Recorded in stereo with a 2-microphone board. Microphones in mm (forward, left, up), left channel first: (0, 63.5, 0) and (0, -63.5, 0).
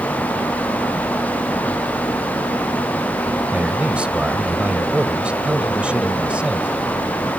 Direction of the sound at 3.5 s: 10° right (ahead or behind).